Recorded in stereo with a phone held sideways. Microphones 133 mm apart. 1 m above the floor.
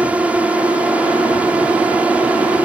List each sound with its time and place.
0.0 s a drone: 10° right (ahead or behind)